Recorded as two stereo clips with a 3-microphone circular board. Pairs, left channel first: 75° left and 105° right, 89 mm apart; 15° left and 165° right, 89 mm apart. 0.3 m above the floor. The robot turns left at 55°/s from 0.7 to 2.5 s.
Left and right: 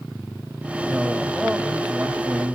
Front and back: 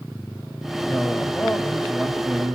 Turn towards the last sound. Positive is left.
turn(degrees=-90)